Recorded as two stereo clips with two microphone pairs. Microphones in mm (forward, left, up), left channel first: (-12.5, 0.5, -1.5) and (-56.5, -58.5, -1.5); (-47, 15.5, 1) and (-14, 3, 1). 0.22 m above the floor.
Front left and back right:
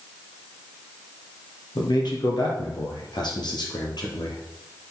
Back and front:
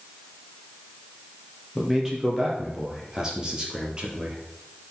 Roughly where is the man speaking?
Ahead left.